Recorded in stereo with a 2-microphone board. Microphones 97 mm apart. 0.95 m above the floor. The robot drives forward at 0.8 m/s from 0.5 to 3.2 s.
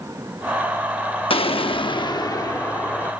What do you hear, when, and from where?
1.3 s an explosion: 70° left (ahead or behind); by 3.1 s 30° left (ahead or behind)